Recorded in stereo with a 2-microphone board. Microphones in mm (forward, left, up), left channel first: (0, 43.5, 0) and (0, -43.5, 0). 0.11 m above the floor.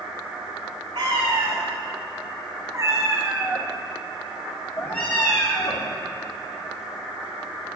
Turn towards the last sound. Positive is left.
turn(degrees=40)  # may be behind; listen again after turning